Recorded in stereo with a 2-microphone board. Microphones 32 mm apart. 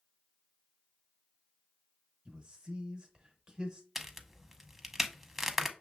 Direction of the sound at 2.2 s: 20° right (ahead or behind).